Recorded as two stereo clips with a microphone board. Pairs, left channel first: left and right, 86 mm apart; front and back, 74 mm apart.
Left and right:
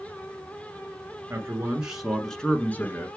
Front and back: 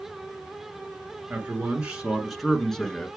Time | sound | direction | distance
1.3 | a man speaking | 130° right | 1.4 m